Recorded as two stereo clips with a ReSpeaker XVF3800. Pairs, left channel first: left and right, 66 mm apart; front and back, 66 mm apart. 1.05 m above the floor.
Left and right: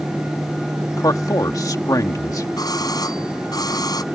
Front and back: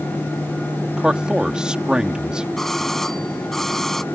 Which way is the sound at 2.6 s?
85° left.